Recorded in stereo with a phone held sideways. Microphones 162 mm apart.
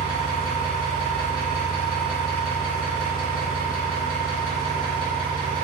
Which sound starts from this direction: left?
An engine running, at 0.0 s.